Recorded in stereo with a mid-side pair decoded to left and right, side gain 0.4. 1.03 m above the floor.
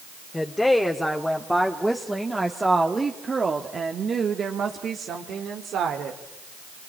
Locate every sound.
0.3 s a woman speaking: 15° left, 2.5 m; by 6.2 s 75° right, 2.5 m